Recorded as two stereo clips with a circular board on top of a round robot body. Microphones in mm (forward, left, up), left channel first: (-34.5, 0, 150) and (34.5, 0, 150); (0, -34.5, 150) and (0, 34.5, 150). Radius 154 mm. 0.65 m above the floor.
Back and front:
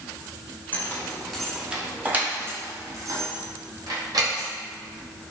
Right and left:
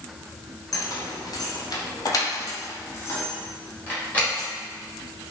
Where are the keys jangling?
115° right, 1.0 m; by 4.5 s 20° right, 1.8 m.